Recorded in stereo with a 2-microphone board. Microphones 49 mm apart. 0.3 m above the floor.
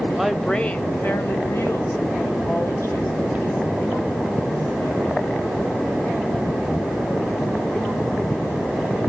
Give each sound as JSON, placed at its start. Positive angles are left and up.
{"t": 0.2, "sound": "a woman speaking", "side_deg": -10, "distance_m": 1.0}